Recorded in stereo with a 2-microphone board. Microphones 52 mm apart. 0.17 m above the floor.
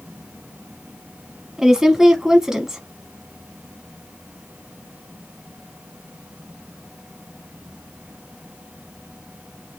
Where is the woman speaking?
10° right (ahead or behind), 1.0 m.